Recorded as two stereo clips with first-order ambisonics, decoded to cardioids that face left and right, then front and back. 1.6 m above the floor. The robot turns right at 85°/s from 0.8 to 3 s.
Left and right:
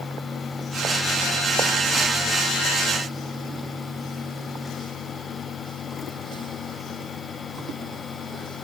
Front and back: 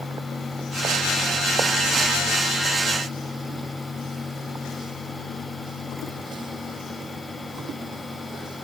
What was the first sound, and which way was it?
Only background noise.